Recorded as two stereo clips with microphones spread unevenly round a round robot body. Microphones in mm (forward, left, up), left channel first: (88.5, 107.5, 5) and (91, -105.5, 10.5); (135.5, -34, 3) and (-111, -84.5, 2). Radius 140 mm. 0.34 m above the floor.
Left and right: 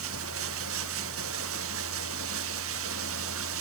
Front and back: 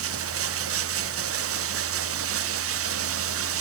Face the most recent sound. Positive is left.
turn(degrees=-135)